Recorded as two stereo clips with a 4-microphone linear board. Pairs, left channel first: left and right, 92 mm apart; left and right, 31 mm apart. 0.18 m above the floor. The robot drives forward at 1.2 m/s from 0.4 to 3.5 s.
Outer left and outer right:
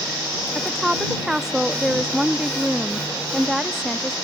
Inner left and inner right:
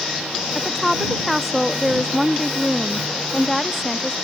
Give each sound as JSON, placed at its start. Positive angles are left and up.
{"t": 0.6, "sound": "a woman speaking", "side_deg": -5}